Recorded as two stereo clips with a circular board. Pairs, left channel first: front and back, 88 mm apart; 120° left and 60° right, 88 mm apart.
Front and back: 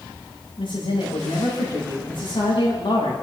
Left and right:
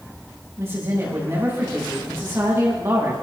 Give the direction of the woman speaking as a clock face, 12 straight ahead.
12 o'clock.